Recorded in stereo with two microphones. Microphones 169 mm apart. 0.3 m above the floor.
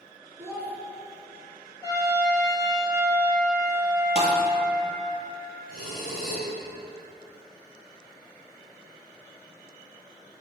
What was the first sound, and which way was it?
A child speaking, 15° right (ahead or behind).